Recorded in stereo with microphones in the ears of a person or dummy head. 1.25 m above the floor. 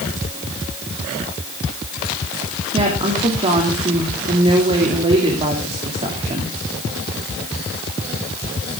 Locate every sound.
2.7 s a woman speaking: 35° right (ahead or behind), 3 m